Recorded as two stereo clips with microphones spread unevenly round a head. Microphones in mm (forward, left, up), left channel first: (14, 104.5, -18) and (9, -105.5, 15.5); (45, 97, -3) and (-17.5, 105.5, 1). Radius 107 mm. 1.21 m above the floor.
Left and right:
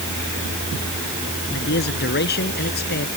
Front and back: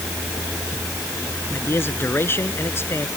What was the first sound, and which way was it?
A man speaking, 45° left.